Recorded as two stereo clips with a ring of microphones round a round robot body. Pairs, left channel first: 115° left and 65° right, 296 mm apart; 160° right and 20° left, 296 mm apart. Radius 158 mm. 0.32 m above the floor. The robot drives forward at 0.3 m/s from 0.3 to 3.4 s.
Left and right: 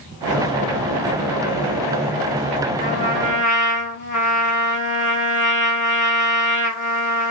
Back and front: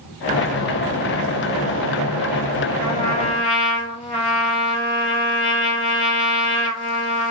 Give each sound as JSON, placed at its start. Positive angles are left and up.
{"t": 2.8, "sound": "a trumpet", "azimuth_deg": 130, "distance_m": 3.5}